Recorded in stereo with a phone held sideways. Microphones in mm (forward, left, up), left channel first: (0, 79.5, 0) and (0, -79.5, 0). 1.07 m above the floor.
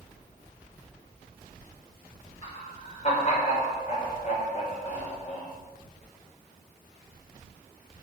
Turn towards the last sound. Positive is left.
turn(degrees=45)  # may be behind; listen again after turning